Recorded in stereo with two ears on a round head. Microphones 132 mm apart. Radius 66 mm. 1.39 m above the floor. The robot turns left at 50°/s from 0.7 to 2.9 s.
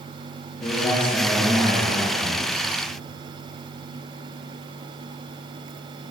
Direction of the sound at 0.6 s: 25° left.